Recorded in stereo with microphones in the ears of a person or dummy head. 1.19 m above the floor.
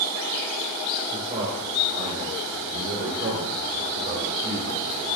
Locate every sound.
1.1 s a man speaking: 20° right (ahead or behind), 3.5 m; by 5.1 s 60° right (ahead or behind), 4.5 m